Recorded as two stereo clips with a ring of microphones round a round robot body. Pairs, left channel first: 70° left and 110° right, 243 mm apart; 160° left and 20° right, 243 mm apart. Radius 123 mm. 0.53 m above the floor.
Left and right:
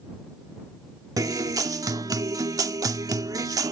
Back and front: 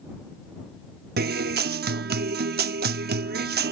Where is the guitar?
45° right.